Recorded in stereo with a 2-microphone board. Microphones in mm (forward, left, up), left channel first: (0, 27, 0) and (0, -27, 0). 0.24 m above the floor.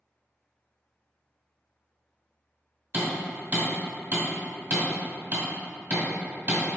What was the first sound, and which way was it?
Hammering, 30° right (ahead or behind).